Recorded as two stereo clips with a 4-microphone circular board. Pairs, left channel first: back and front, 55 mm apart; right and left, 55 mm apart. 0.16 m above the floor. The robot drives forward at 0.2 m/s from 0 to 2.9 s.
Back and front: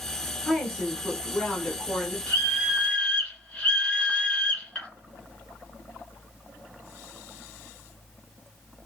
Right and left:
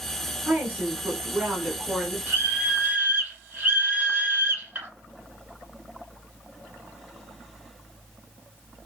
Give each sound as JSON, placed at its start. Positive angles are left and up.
{"t": 0.5, "sound": "a woman speaking", "azimuth_deg": 100, "distance_m": 1.1}
{"t": 2.3, "sound": "a scream", "azimuth_deg": 135, "distance_m": 1.8}